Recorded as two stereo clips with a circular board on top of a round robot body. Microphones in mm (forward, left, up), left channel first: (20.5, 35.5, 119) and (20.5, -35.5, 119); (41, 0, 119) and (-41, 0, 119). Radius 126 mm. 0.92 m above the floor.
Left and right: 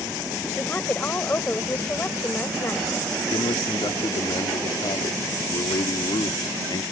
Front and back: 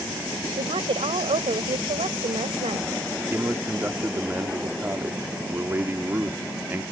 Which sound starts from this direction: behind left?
A man speaking, at 3.3 s.